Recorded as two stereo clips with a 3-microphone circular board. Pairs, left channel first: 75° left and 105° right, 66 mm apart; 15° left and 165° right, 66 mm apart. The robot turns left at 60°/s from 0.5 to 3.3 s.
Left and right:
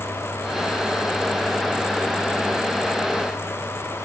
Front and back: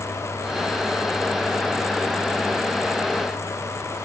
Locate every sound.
Only background noise.